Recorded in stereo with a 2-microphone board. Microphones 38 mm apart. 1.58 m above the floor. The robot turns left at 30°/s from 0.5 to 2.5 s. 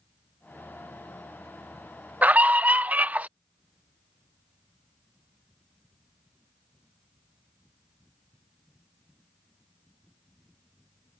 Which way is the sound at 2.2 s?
40° right (ahead or behind).